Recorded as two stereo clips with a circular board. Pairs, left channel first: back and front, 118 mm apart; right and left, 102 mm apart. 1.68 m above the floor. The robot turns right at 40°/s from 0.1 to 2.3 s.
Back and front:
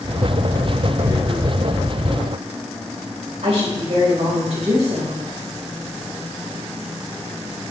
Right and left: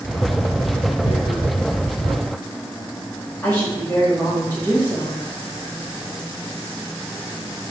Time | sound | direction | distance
1.0 | tearing paper | 65° right | 1.4 m
3.4 | a woman speaking | 15° right | 3.5 m